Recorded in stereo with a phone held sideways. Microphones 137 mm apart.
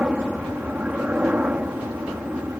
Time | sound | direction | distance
0.0 | a helicopter | 10° right (ahead or behind) | ?